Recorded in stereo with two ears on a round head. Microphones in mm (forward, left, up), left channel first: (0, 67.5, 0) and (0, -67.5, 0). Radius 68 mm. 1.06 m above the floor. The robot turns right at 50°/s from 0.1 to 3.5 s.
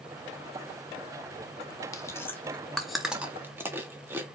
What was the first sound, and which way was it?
Chewing, 20° left (ahead or behind).